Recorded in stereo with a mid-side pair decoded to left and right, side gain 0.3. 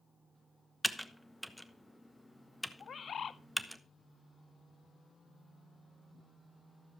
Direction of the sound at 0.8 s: Straight ahead.